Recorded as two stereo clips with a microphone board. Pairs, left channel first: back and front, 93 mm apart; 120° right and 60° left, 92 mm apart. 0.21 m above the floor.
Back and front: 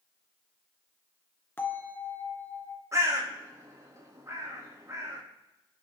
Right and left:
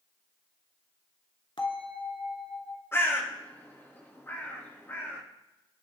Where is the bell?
115° right, 2.5 m.